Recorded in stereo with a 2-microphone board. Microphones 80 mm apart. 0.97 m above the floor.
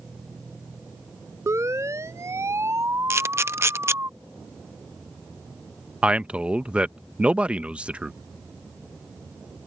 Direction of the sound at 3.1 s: 35° right (ahead or behind).